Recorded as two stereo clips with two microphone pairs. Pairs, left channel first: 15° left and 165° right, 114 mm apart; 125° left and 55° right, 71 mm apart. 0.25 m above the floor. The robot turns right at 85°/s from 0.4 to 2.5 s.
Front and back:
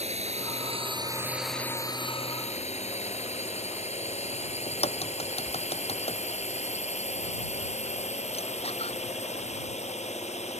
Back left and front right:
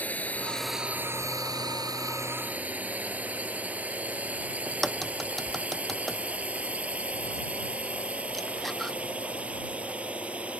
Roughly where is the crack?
Ahead left.